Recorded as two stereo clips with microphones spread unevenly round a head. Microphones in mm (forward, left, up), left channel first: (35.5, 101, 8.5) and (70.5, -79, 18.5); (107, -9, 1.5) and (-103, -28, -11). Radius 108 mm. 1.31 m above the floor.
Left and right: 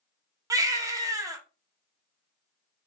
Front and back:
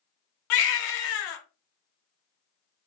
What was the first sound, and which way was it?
A baby crying, 10° right.